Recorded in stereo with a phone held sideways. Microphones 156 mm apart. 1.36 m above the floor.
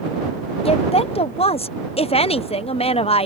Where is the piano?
No piano in this recording.